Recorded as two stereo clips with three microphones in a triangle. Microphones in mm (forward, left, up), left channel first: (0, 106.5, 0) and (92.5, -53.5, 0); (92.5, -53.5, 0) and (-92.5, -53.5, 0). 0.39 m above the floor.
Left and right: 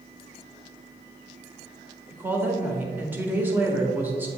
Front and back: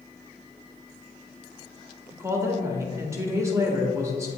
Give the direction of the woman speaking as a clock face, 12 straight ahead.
4 o'clock.